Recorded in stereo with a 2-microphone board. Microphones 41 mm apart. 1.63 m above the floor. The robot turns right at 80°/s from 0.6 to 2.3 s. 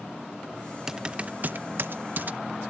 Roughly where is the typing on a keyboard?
Centre.